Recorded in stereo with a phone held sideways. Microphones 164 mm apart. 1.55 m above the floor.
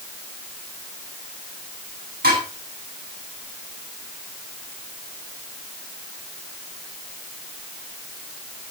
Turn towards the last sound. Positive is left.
turn(degrees=-80)